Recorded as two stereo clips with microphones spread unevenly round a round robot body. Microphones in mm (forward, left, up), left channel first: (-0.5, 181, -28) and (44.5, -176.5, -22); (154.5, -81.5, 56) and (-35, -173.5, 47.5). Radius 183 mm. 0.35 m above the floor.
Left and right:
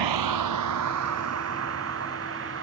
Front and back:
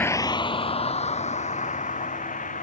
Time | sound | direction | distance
0.0 | a vehicle | 55° right | ?